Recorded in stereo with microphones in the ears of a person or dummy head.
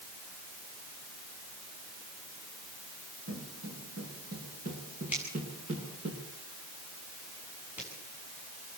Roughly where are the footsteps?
Right.